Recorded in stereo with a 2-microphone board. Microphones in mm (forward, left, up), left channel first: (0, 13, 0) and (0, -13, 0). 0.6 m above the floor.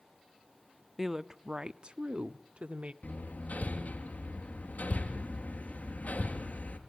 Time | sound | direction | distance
1.0 | a woman speaking | 10° right (ahead or behind) | 0.8 m
3.0 | hammering | 80° left | 3.5 m